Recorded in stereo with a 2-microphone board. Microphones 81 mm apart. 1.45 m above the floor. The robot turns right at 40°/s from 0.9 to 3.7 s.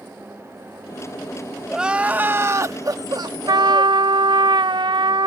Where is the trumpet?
55° right (ahead or behind); by 5.3 s 65° right (ahead or behind).